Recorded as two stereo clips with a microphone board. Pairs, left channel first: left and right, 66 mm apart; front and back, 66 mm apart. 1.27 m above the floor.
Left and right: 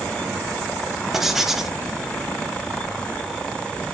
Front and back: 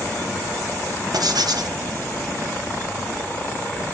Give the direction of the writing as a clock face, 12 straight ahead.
6 o'clock.